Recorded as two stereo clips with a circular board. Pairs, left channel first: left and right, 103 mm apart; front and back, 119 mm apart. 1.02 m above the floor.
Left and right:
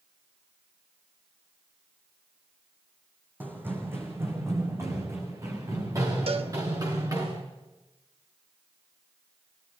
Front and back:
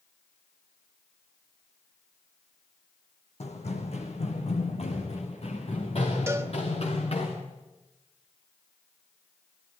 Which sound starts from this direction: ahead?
Running footsteps, at 3.4 s.